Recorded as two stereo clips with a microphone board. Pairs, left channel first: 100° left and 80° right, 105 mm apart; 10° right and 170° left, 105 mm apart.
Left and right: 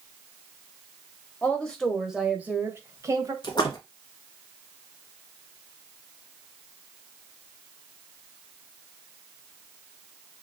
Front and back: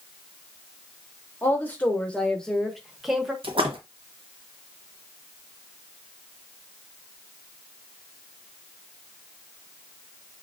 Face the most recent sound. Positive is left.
turn(degrees=145)